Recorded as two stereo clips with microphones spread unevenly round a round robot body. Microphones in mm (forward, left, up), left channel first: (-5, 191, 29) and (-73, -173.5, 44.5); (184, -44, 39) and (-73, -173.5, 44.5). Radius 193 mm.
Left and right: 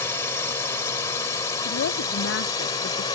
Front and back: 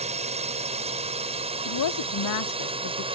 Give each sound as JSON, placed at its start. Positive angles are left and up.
{"t": 0.0, "sound": "a drone", "azimuth_deg": 155}
{"t": 1.6, "sound": "a woman speaking", "azimuth_deg": 20}